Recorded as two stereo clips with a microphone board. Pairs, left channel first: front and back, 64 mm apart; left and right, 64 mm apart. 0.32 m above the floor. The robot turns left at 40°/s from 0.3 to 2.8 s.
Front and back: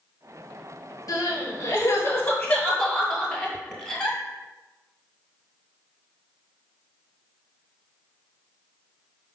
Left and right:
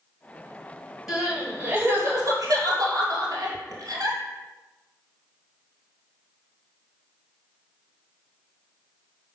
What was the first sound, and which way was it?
Crying, 10° right.